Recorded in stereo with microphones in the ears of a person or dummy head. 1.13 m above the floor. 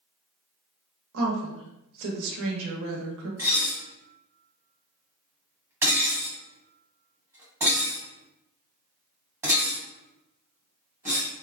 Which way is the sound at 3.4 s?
10° right (ahead or behind).